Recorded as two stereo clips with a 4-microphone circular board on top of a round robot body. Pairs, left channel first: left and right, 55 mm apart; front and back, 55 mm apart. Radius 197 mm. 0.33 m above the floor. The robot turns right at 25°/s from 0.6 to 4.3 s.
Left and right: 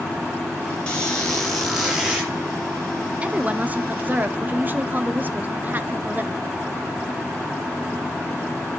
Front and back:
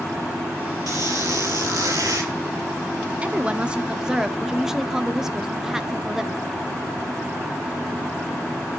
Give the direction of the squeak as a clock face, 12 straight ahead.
7 o'clock.